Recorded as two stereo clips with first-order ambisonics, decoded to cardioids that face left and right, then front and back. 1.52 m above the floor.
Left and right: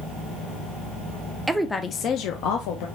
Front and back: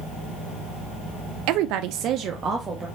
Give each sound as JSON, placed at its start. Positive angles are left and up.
{"t": 1.5, "sound": "a woman speaking", "azimuth_deg": -170, "distance_m": 0.5}